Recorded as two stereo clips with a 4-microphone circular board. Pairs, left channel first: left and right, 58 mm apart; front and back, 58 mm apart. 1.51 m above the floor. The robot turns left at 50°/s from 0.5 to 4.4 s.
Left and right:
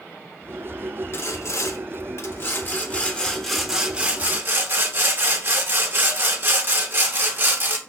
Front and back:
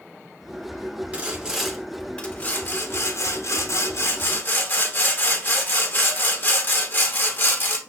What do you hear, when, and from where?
1.1 s sawing: 120° left, 0.8 m; by 7.8 s 45° right, 0.8 m